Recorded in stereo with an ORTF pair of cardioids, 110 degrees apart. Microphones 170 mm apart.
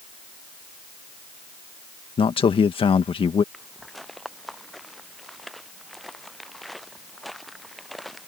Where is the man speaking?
35° left.